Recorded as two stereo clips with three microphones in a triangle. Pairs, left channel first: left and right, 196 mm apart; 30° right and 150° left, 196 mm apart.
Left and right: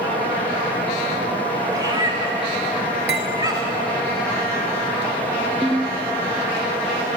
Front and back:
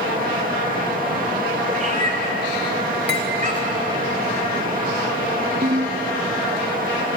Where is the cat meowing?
160° right, 2.5 m.